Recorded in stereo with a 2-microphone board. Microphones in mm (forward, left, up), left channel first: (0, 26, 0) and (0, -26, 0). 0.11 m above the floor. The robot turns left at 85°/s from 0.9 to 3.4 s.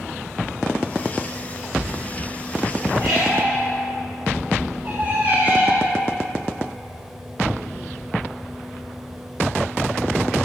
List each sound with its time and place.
3.0 s a squeak: centre (ahead or behind), 2.5 m; by 5.9 s 30° right (ahead or behind), 2.5 m